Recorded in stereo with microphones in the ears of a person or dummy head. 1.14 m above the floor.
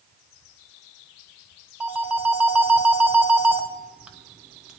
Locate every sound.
1.8 s a phone ringing: 5° right (ahead or behind), 1.0 m